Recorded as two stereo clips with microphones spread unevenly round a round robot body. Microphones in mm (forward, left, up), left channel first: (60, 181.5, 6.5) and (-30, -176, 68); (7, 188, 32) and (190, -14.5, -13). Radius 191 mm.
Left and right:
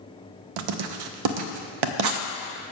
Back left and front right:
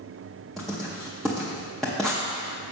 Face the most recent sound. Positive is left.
turn(degrees=-135)